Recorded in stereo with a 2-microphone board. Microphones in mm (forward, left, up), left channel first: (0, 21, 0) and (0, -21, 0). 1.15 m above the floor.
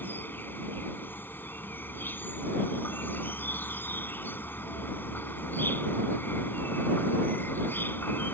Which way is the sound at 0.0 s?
55° left (ahead or behind).